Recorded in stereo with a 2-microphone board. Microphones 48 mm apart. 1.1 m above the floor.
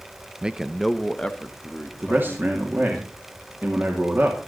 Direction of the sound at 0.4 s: 20° right (ahead or behind).